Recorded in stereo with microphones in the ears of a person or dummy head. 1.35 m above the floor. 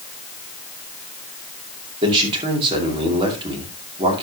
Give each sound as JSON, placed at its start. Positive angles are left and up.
{"t": 2.0, "sound": "a man speaking", "side_deg": -25, "distance_m": 2.5}